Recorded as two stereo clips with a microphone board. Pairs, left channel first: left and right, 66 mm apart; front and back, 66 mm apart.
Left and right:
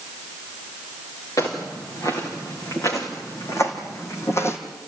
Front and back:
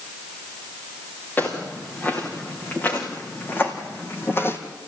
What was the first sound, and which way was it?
Footsteps, 60° left.